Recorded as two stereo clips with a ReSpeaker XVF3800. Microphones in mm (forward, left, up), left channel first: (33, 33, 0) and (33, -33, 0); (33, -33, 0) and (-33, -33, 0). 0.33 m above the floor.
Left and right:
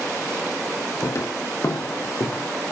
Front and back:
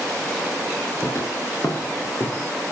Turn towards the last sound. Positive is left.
turn(degrees=50)